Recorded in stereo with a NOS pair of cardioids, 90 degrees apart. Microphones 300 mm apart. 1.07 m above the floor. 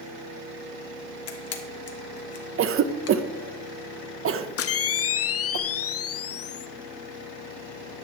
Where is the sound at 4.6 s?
50° left, 0.7 m.